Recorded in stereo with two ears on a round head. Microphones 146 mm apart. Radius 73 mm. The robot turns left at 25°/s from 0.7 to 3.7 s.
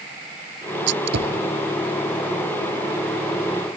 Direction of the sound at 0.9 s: 85° right.